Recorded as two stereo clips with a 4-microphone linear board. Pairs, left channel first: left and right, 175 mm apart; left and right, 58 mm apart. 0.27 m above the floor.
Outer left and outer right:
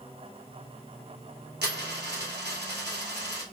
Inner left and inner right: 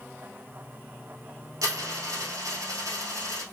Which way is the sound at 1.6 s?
75° right (ahead or behind).